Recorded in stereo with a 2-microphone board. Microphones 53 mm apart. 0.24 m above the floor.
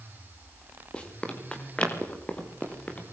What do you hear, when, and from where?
0.9 s running footsteps: 20° left (ahead or behind), 6.5 m; by 3.0 s 25° left (ahead or behind), 7.5 m